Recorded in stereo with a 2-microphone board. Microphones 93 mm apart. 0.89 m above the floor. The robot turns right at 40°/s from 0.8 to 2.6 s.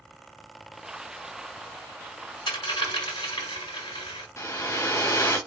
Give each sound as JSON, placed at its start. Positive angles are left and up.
{"t": 2.5, "sound": "a dropped coin", "side_deg": 65, "distance_m": 1.6}
{"t": 4.4, "sound": "a hair dryer", "side_deg": 30, "distance_m": 0.7}